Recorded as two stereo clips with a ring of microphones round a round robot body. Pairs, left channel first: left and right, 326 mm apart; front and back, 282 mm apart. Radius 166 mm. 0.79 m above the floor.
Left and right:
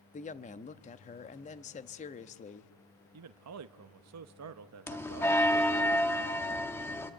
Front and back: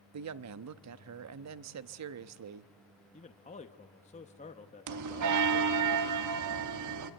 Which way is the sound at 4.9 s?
170° left.